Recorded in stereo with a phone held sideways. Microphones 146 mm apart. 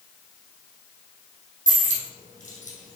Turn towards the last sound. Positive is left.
turn(degrees=60)  # may be behind; listen again after turning